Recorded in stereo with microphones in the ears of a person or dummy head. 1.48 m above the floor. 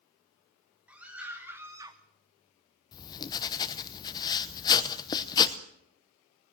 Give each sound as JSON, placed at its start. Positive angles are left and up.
{"t": 0.9, "sound": "a scream", "side_deg": -10, "distance_m": 2.5}
{"t": 2.9, "sound": "writing", "side_deg": 20, "distance_m": 0.9}